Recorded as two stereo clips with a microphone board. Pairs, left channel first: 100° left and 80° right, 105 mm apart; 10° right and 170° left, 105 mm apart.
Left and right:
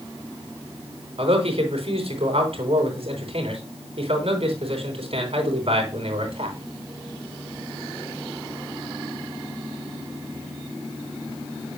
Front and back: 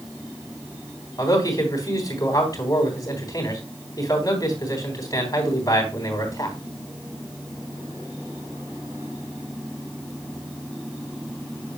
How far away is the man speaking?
About 3 m.